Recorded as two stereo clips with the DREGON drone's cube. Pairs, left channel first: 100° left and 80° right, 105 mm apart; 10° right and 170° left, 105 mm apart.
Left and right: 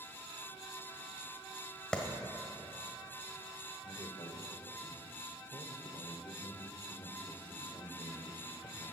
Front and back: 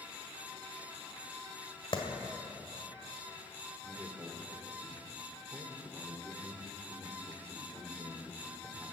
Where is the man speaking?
110° left, 1.6 m.